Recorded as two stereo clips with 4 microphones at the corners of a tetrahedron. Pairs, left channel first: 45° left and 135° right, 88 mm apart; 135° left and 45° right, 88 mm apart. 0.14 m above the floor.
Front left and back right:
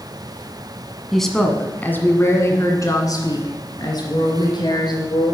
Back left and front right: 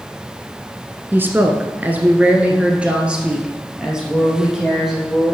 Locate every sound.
1.1 s a woman speaking: 45° right, 1.3 m; by 5.3 s 40° left, 3 m